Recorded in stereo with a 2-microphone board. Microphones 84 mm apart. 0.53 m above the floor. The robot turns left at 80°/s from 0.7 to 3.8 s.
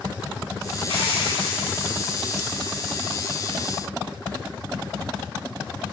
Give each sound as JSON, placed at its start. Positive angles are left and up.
{"t": 0.9, "sound": "a hiss", "azimuth_deg": 95, "distance_m": 5.0}